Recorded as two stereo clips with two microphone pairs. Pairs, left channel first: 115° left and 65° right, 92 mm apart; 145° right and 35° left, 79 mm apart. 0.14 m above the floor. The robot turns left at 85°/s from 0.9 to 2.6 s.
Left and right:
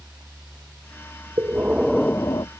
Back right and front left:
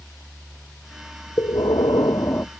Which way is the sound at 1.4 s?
115° right.